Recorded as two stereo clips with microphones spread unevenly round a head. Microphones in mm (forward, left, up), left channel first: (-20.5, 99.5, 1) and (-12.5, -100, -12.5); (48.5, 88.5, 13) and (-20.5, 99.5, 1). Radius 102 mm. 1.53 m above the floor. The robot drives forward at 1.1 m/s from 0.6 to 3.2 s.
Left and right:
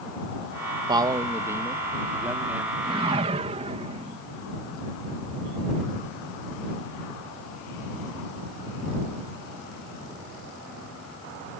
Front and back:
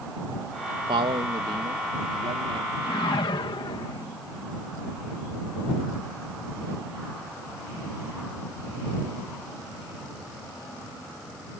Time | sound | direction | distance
0.9 | a man speaking | 160° right | ?
2.8 | a whoosh | 20° right | ?